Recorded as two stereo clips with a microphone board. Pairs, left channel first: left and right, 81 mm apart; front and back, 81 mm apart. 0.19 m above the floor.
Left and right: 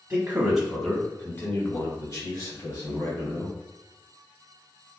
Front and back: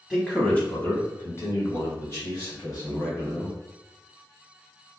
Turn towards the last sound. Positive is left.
turn(degrees=55)